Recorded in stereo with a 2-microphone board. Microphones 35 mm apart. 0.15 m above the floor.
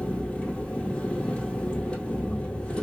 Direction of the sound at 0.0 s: 40° left (ahead or behind).